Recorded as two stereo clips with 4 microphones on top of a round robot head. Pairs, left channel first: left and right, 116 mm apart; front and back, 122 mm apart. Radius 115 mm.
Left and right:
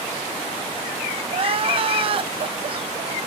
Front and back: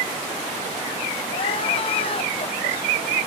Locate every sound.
1.3 s crying: 50° right, 0.9 m